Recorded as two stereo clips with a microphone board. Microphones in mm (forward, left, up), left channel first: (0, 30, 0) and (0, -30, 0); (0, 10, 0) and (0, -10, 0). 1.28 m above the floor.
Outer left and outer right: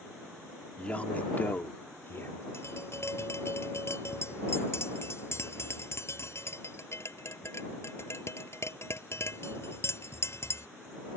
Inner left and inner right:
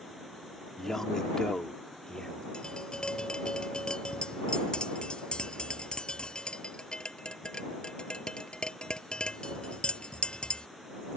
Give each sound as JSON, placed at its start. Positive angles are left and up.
{"t": 0.8, "sound": "a man speaking", "side_deg": 20}
{"t": 2.5, "sound": "tapping", "side_deg": 50}